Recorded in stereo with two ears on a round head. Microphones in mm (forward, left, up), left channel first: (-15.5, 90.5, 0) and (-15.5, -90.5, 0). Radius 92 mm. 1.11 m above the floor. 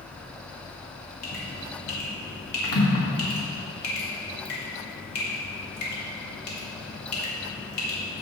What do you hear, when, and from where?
1.2 s dripping: 85° left, 2.5 m